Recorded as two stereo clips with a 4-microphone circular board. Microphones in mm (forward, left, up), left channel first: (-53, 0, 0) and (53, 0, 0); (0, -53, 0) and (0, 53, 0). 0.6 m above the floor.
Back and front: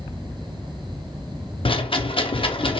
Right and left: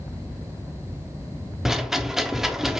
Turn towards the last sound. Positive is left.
turn(degrees=175)